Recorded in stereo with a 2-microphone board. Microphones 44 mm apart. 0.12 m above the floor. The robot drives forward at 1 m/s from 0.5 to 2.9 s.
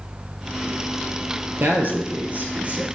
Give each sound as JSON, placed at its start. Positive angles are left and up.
{"t": 1.6, "sound": "a man speaking", "side_deg": -45, "distance_m": 2.0}